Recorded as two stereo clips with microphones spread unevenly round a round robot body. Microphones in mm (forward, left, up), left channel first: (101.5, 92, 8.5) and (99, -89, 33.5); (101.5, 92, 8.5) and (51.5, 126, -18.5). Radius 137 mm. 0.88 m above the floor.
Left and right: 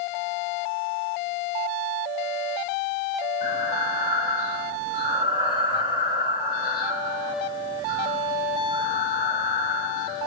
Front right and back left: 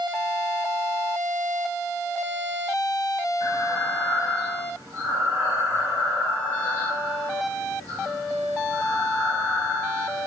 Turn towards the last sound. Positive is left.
turn(degrees=-170)